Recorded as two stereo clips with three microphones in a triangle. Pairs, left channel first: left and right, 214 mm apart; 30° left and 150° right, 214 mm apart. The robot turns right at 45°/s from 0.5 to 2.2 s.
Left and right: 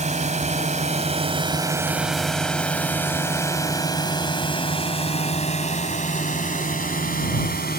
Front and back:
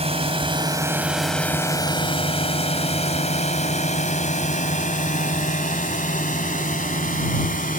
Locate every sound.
0.0 s a drone: 115° right; by 7.8 s 65° left